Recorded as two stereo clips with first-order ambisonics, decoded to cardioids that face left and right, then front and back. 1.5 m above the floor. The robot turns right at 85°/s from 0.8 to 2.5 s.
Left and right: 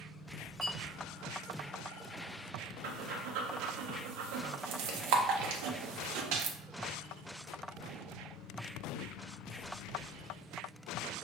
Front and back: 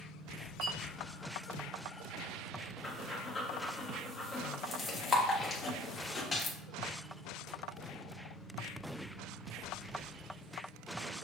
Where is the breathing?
80° right, 0.7 m.